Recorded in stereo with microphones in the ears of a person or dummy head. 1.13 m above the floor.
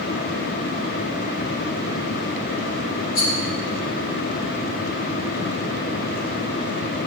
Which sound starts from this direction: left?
A rattle, at 3.1 s.